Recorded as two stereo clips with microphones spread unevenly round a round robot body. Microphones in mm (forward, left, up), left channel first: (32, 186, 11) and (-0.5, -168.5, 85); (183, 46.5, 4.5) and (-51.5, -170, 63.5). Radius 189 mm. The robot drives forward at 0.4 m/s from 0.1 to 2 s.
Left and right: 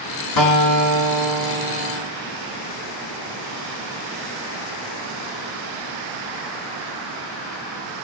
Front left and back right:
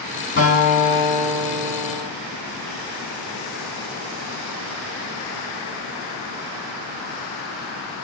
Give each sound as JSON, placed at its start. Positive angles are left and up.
{"t": 0.4, "sound": "a guitar", "azimuth_deg": 110, "distance_m": 2.5}